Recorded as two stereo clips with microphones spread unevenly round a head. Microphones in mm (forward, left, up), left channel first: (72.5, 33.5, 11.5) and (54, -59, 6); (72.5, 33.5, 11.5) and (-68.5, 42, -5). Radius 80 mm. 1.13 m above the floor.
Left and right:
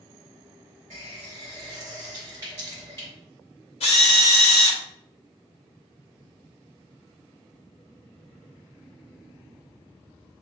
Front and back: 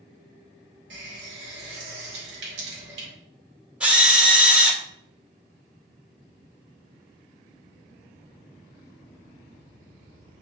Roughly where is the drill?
Left.